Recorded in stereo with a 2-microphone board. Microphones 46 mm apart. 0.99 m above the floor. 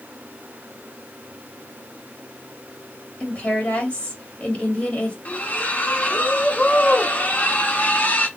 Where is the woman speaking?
35° left (ahead or behind), 2.5 m.